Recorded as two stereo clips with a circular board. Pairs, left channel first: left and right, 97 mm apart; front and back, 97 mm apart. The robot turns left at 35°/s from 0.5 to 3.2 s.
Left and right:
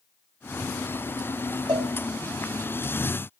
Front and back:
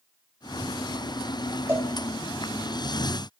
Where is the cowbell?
120° right, 1.8 m; by 1.9 s 125° right, 1.8 m.